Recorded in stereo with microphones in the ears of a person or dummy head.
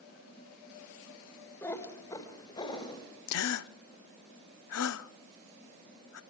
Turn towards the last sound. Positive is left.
turn(degrees=65)  # may be behind; listen again after turning